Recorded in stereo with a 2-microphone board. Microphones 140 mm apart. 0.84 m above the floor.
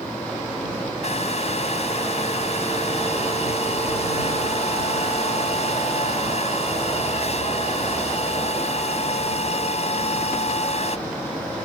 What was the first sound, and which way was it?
A hair dryer, 50° left (ahead or behind).